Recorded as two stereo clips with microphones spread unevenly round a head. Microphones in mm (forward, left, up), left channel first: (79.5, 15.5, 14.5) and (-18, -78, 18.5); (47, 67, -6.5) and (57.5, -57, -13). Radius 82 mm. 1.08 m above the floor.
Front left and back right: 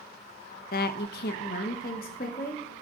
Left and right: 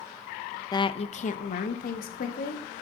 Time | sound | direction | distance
0.7 | a woman speaking | 30° left | 0.6 m